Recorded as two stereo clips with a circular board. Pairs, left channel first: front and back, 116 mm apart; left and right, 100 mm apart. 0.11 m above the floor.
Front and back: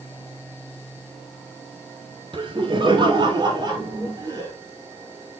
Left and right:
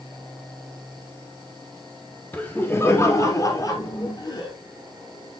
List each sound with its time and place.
2.3 s laughter: 160° left, 2 m; by 4.5 s 130° left, 3 m